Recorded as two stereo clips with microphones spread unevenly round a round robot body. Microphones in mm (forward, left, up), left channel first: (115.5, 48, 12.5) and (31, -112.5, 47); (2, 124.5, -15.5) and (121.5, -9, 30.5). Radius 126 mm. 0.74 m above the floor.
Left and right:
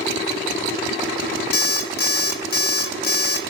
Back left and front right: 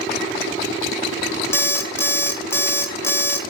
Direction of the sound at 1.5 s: 65° left.